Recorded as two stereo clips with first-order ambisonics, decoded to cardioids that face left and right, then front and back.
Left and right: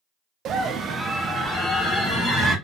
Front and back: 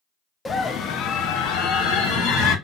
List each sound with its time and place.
0.5 s a scream: 70° right, 0.6 m; by 2.5 s 5° left, 1.7 m